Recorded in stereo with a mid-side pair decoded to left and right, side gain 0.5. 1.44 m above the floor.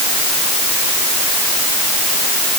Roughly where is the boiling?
I don't hear boiling.